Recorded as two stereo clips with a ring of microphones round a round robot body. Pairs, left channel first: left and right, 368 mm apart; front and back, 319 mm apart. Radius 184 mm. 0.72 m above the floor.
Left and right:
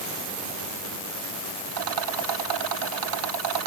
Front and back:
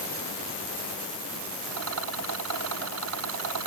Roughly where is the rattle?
Behind right.